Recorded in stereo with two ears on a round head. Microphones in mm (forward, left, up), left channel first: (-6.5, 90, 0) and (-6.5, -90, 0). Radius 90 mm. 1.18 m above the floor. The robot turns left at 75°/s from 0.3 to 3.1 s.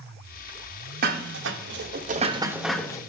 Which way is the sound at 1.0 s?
45° right (ahead or behind).